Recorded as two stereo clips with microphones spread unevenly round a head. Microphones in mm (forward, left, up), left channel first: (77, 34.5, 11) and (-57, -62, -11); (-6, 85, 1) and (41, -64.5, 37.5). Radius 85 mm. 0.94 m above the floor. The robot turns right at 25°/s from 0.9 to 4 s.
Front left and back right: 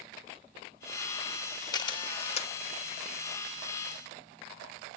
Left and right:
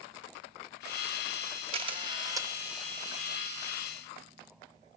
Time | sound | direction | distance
1.7 | a camera shutter | 25° right | 1.1 m